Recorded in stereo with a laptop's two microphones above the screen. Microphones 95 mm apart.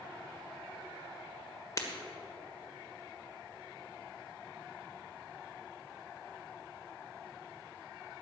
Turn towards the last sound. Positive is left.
turn(degrees=35)  # may be behind; listen again after turning